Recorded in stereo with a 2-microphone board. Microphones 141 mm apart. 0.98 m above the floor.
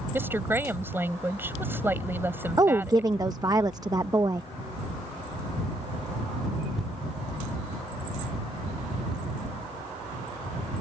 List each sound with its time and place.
0.1 s a woman speaking: 15° right (ahead or behind)
2.6 s a woman speaking: 25° right (ahead or behind)